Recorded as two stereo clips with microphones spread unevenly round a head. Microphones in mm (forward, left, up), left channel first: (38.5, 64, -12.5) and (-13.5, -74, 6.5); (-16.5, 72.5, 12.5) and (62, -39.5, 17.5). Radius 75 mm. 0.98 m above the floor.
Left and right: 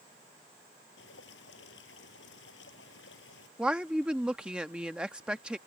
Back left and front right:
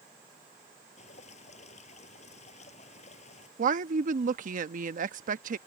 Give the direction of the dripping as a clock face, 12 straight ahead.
9 o'clock.